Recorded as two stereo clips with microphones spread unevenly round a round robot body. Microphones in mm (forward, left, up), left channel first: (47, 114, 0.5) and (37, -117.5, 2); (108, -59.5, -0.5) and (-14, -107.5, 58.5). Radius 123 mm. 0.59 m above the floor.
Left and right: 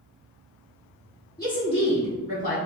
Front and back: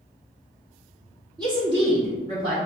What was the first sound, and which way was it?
A woman speaking, 125° left.